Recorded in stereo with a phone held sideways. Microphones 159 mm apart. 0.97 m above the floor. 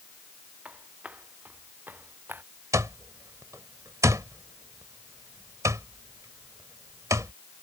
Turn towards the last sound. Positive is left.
turn(degrees=-20)  # may be behind; listen again after turning